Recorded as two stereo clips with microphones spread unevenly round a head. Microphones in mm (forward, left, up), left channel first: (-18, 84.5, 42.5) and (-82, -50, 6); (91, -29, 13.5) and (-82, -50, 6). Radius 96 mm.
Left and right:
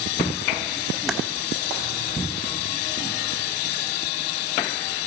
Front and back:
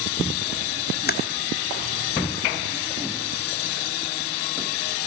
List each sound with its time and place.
1.1 s typing on a keyboard: 25° right, 1.4 m